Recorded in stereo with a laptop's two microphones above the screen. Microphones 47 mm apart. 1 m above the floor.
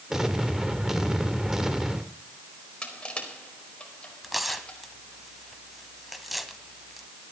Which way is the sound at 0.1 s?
10° right (ahead or behind).